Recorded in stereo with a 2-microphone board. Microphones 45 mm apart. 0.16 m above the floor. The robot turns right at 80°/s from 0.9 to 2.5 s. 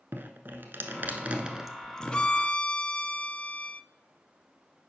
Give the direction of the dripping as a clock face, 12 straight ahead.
2 o'clock.